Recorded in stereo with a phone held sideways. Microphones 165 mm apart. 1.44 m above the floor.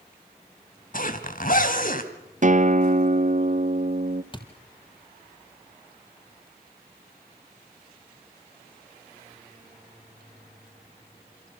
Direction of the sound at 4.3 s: 30° left (ahead or behind).